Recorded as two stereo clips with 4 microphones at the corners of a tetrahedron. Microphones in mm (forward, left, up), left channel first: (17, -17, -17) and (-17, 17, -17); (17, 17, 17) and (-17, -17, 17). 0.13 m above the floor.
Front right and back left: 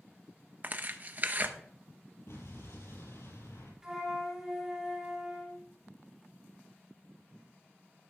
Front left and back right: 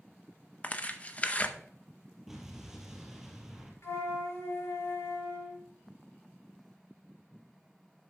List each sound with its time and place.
0.6 s tearing paper: 100° left, 0.7 m
2.3 s an explosion: 50° right, 3.5 m
3.8 s a flute: 65° left, 3.5 m